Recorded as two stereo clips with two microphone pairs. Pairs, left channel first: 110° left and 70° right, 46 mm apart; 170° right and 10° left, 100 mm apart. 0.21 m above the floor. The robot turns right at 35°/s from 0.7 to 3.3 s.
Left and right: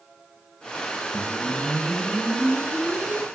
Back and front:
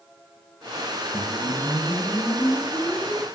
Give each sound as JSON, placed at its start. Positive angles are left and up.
{"t": 1.1, "sound": "a whoosh", "azimuth_deg": -140, "distance_m": 1.4}